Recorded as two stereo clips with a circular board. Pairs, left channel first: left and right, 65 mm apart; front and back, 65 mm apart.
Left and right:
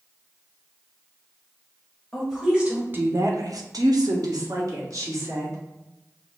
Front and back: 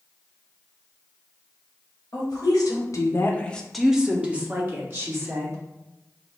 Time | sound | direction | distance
2.1 | a woman speaking | straight ahead | 1.3 m